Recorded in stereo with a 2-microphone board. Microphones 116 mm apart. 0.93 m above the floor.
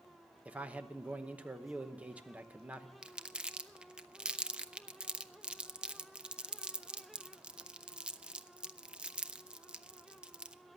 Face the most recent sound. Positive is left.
turn(degrees=-10)  # may be behind; listen again after turning